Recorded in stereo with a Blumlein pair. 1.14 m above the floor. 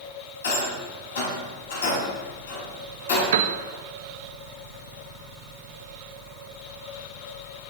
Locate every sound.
0.4 s a rattle: 65° left, 5 m
3.3 s a piano: 55° right, 0.7 m